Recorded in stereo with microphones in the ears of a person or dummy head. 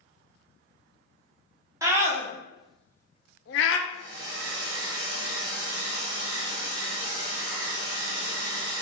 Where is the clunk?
No clunk in this recording.